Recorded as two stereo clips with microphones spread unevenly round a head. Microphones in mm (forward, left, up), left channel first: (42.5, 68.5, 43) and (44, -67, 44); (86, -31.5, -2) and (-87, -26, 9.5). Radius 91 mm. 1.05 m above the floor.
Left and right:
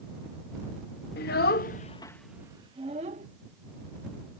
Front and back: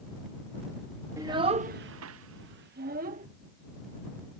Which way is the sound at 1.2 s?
105° left.